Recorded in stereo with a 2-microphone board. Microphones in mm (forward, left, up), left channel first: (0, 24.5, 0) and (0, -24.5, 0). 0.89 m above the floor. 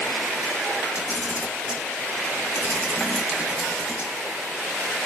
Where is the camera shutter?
55° left (ahead or behind), 0.8 m.